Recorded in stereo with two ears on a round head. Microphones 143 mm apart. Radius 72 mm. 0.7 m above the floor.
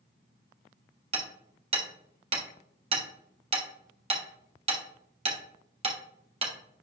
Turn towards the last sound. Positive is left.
turn(degrees=-35)  # may be behind; listen again after turning